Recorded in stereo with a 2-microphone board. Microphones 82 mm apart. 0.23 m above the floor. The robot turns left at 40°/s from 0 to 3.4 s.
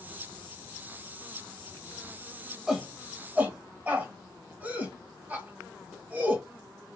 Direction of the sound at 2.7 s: 10° right (ahead or behind).